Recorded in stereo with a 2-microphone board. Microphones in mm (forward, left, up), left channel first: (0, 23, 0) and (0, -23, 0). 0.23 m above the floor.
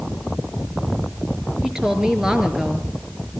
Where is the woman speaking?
15° right (ahead or behind), 3.5 m.